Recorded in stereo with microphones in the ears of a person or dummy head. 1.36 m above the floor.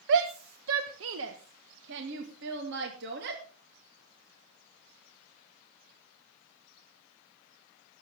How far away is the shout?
About 1.1 m.